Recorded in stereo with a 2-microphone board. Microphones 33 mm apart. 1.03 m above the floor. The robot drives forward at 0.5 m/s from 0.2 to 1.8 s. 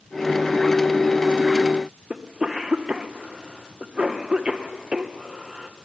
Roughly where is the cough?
Right.